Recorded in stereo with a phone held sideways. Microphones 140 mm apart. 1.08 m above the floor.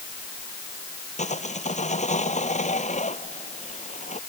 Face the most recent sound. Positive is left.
turn(degrees=60)  # may be behind; listen again after turning